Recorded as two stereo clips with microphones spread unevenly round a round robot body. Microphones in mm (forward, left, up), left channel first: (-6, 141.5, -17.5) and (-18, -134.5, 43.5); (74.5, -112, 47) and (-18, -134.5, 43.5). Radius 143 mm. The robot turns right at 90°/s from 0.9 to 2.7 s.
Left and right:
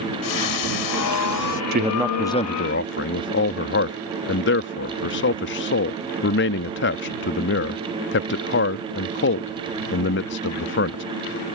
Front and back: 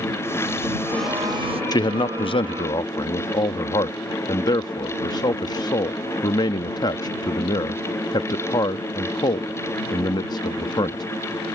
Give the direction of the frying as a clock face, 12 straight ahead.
9 o'clock.